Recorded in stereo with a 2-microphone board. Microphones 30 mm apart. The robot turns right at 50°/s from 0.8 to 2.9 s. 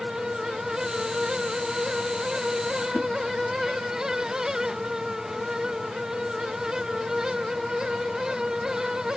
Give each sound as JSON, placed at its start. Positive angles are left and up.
{"t": 2.9, "sound": "a whoosh", "side_deg": 55, "distance_m": 1.2}